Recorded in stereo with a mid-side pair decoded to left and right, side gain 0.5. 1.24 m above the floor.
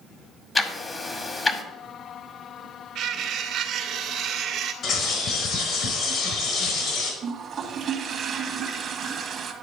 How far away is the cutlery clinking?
About 1.8 m.